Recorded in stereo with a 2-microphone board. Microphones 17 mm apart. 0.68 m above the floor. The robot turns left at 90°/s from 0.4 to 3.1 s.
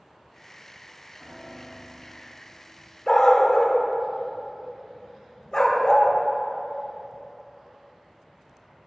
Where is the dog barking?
45° left (ahead or behind), 0.7 m; by 6.1 s 40° left (ahead or behind), 0.7 m.